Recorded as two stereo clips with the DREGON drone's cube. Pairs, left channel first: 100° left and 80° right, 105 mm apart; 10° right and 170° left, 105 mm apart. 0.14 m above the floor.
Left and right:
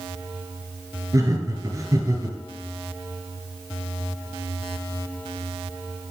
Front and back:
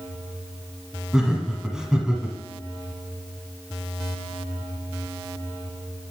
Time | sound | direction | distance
1.1 | laughter | 110° right | 1.4 m